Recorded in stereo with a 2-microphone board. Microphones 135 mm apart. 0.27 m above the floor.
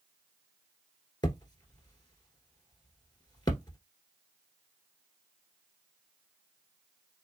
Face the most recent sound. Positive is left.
turn(degrees=30)  # may be behind; listen again after turning